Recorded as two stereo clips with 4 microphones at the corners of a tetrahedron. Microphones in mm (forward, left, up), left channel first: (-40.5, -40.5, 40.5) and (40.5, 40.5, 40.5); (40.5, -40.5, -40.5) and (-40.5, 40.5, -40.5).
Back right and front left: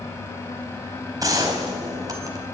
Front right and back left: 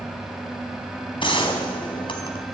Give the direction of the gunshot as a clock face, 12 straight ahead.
12 o'clock.